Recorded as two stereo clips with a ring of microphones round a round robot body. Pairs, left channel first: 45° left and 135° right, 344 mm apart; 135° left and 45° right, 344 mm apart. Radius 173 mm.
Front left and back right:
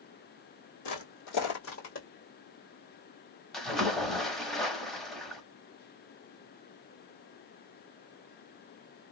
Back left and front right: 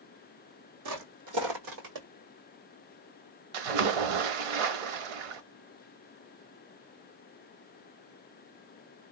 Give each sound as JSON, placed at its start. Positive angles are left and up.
{"t": 0.8, "sound": "footsteps", "azimuth_deg": 5, "distance_m": 2.0}
{"t": 3.5, "sound": "a splash", "azimuth_deg": -45, "distance_m": 0.8}